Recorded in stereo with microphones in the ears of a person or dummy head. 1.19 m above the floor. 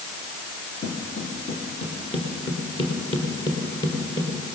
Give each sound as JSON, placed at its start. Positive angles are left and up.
{"t": 0.8, "sound": "footsteps", "side_deg": 40, "distance_m": 3.5}